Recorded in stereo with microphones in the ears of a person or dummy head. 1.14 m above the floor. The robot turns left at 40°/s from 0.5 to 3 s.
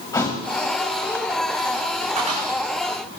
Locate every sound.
0.1 s a thud: 20° left (ahead or behind), 2.5 m
2.2 s a cupboard door: 35° right (ahead or behind), 8.5 m; by 2.5 s 25° right (ahead or behind), 8.5 m